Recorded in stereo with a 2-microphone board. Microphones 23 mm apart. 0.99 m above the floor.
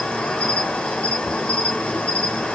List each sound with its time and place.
0.0 s an insect: 70° left (ahead or behind), 1.7 m